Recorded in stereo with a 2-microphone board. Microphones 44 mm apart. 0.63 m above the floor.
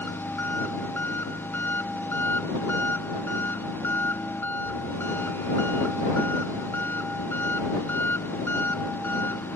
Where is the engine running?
55° left (ahead or behind).